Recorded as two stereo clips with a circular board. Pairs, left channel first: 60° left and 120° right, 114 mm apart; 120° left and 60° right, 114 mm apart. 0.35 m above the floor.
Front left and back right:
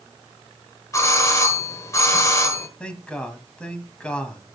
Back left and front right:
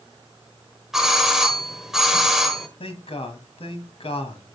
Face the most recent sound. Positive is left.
turn(degrees=140)